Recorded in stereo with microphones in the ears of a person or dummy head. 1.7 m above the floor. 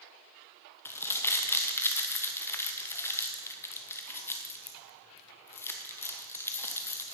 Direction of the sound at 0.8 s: 15° left (ahead or behind).